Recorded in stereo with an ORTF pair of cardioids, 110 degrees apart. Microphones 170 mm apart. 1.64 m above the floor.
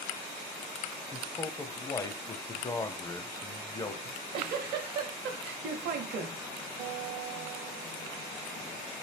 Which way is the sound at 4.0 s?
65° right.